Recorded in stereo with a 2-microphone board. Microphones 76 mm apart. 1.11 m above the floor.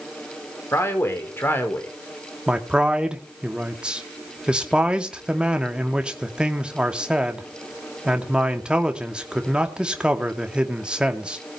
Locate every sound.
0.7 s a man speaking: 35° left (ahead or behind), 4 m; by 1.9 s 25° left (ahead or behind), 4 m
2.5 s a man speaking: 15° right (ahead or behind), 2.5 m